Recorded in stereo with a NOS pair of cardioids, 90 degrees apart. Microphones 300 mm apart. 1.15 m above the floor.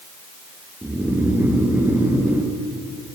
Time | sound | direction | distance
0.8 | snoring | 5° right | 0.7 m